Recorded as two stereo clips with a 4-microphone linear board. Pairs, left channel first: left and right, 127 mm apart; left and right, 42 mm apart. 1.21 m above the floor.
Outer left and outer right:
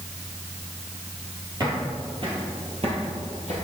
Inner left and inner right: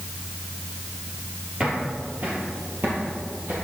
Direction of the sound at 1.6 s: 30° right (ahead or behind).